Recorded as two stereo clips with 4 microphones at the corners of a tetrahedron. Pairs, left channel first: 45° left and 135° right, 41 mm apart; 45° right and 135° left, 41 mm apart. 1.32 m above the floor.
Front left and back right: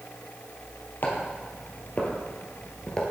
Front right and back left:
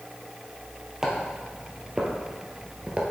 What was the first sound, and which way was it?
Footsteps, 60° left.